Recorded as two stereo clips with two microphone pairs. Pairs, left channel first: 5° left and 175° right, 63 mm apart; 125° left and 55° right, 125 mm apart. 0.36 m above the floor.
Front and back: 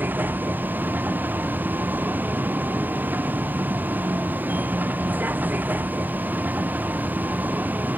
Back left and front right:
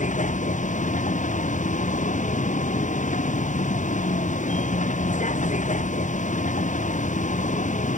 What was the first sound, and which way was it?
A vehicle, 125° left.